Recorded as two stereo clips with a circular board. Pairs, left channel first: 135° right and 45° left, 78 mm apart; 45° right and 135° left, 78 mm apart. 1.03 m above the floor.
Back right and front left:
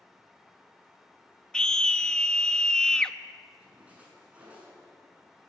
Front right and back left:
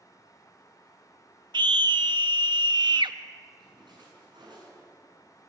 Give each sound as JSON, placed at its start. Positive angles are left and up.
{"t": 1.5, "sound": "a scream", "azimuth_deg": 145, "distance_m": 1.1}
{"t": 3.6, "sound": "a splash", "azimuth_deg": 120, "distance_m": 7.0}